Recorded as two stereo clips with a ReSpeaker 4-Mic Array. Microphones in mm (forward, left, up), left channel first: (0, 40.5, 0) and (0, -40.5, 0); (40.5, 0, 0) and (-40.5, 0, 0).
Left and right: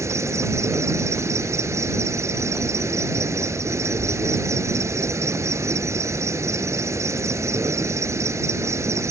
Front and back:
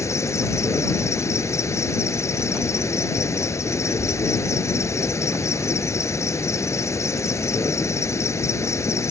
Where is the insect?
45° right.